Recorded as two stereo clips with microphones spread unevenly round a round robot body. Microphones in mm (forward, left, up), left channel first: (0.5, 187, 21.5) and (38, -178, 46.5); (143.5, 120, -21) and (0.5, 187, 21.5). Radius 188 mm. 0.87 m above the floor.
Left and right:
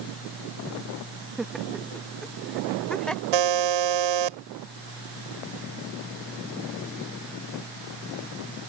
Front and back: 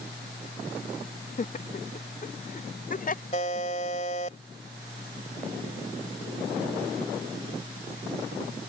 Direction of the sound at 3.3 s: 95° right.